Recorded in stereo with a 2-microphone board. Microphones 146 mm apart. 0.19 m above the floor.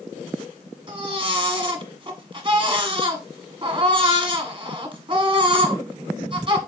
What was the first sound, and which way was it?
A baby crying, 35° right (ahead or behind).